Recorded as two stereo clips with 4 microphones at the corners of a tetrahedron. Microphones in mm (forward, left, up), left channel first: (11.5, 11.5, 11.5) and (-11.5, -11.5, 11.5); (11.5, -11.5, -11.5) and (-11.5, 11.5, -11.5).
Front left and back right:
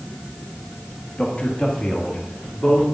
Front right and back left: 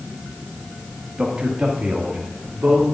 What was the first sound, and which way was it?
A man speaking, 80° left.